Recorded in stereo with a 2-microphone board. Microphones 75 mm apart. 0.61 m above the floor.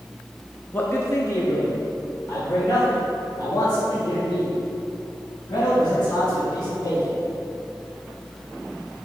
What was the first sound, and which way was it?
A man speaking, 25° left (ahead or behind).